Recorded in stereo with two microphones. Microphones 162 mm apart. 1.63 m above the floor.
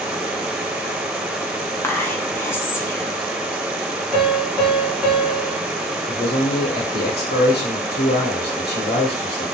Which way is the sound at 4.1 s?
5° right (ahead or behind).